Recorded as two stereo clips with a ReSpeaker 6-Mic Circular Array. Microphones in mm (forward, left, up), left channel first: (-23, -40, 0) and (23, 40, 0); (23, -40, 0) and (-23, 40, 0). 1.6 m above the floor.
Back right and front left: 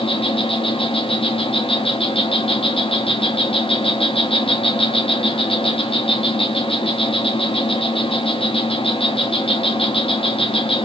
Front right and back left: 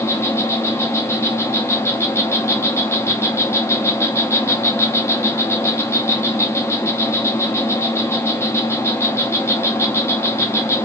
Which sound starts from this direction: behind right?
An insect, at 0.0 s.